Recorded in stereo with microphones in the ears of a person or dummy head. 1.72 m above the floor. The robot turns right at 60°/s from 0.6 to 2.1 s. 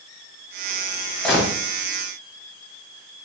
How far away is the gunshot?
About 1.8 m.